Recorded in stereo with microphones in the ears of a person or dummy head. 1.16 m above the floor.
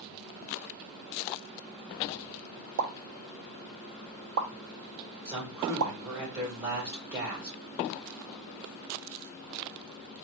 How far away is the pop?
About 0.6 m.